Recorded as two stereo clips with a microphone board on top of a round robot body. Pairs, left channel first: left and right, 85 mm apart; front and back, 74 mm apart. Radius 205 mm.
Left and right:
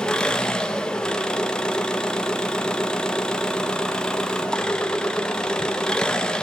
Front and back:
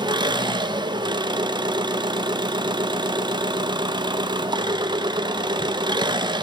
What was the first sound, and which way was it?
An engine running, 170° left.